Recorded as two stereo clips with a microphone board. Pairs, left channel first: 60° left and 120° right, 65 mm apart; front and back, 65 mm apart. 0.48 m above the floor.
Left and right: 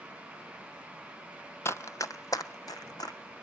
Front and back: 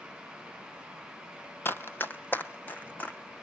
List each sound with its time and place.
1.6 s running footsteps: 35° left, 0.6 m; by 3.2 s 60° left, 1.4 m